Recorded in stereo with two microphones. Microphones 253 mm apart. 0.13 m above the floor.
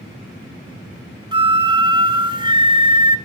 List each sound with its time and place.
1.3 s a flute: 20° right (ahead or behind), 0.9 m